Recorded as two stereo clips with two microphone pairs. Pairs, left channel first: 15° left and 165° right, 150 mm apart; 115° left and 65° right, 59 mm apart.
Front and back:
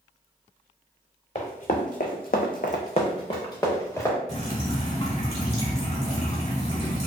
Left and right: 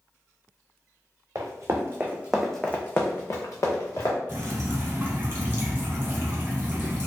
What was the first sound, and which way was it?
Running footsteps, 35° right.